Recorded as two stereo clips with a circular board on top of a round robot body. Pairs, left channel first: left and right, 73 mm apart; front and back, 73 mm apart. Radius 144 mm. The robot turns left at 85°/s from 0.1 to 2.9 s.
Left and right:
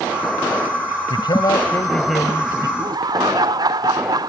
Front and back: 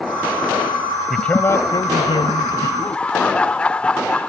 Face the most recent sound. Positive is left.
turn(degrees=-75)